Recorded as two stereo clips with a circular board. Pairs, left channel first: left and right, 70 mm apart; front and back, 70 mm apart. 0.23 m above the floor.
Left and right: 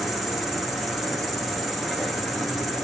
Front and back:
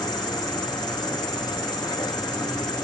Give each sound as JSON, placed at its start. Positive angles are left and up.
{"t": 0.0, "sound": "an insect", "azimuth_deg": 0, "distance_m": 0.8}